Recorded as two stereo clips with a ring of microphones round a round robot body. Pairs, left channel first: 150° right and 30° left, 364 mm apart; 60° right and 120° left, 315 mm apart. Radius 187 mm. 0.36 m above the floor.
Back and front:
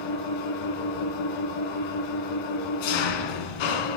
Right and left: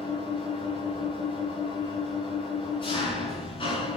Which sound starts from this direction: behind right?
An engine running, at 0.0 s.